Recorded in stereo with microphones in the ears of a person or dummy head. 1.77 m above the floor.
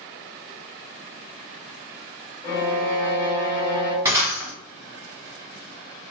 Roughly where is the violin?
Left.